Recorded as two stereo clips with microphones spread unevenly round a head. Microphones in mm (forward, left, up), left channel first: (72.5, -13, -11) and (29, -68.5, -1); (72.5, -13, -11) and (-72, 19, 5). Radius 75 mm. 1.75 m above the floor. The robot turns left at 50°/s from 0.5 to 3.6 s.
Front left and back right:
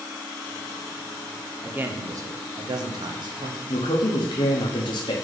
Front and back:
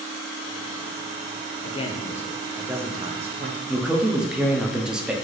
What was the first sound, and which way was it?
A man speaking, 60° right.